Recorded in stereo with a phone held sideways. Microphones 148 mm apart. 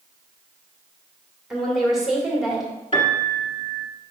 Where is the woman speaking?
5° right (ahead or behind), 2 m.